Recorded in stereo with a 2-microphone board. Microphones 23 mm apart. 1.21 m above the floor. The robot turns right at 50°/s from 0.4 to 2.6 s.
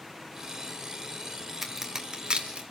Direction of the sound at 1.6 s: 10° right (ahead or behind).